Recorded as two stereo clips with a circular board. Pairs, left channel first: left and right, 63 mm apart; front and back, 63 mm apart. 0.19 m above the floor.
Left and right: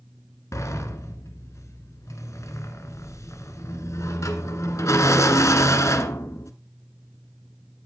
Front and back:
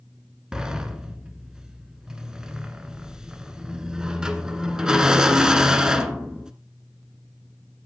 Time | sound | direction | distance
0.5 | a sliding door | 105° left | 1.1 m